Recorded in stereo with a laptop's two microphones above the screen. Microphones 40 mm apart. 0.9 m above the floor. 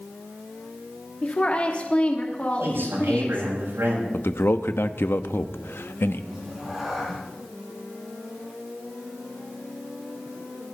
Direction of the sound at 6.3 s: 10° right (ahead or behind).